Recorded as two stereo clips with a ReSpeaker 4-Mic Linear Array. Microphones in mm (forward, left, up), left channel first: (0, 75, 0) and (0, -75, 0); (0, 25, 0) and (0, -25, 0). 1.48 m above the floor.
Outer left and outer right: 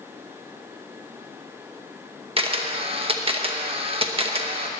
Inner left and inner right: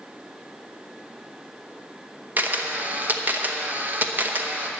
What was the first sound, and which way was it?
A camera shutter, 40° right (ahead or behind).